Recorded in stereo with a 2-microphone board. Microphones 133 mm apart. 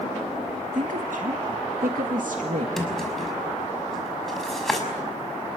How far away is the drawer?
About 5.5 m.